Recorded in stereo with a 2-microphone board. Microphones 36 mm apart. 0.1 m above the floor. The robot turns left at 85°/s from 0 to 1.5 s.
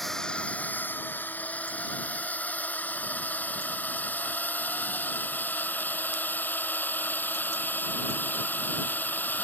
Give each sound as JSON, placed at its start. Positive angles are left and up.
{"t": 0.0, "sound": "a drone", "side_deg": 5}